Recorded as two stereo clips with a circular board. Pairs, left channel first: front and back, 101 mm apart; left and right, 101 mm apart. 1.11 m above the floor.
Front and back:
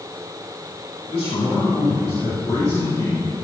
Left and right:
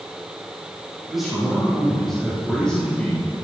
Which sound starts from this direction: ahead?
A man speaking, at 1.1 s.